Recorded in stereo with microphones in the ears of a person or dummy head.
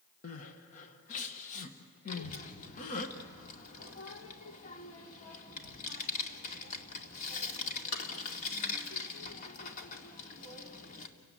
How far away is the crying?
About 1.6 m.